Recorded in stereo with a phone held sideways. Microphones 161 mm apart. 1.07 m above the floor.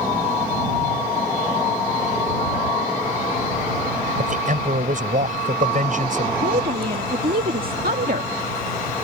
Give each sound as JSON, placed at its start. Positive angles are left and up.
{"t": 4.2, "sound": "a man speaking", "side_deg": -55}
{"t": 6.4, "sound": "a woman speaking", "side_deg": -70}